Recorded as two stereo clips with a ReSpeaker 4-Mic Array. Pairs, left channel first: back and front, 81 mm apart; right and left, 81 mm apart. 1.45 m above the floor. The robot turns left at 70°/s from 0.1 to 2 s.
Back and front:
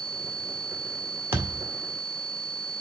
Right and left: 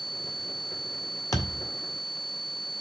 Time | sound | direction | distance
1.3 | a thud | 55° right | 1.6 m